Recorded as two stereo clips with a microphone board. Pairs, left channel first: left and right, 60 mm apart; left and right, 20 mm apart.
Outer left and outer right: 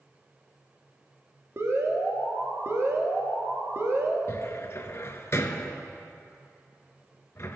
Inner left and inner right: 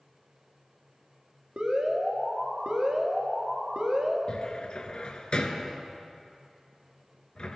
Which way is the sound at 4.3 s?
50° left (ahead or behind).